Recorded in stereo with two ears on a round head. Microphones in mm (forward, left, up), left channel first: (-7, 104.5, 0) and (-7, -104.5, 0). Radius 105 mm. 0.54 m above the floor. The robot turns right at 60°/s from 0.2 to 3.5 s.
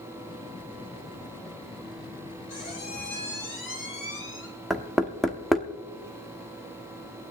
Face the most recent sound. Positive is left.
turn(degrees=0)  # may be behind; listen again after turning